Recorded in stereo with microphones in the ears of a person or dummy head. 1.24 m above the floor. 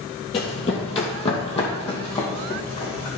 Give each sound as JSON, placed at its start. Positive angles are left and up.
{"t": 0.3, "sound": "running footsteps", "side_deg": 35, "distance_m": 1.5}